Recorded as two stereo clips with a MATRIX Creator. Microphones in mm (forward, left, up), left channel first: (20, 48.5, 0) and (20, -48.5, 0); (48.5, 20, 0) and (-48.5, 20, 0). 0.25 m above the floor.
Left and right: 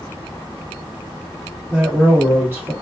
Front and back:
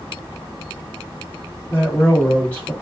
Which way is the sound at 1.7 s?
55° right.